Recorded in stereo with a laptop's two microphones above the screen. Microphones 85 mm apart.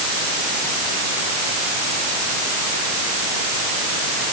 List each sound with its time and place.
Only background noise.